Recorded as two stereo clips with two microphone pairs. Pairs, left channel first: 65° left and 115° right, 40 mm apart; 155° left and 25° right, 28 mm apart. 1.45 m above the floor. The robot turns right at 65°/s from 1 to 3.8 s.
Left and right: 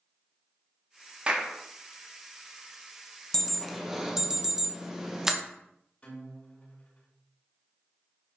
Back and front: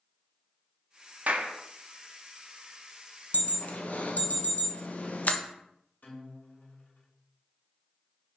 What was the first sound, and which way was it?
A clap, 50° right.